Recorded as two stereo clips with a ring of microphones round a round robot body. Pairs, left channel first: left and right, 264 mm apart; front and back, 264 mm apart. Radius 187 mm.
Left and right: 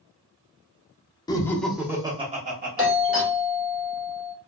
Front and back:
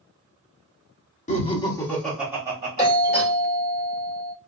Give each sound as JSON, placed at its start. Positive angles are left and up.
{"t": 1.3, "sound": "laughter", "azimuth_deg": 30, "distance_m": 0.8}
{"t": 2.8, "sound": "a doorbell", "azimuth_deg": -5, "distance_m": 1.7}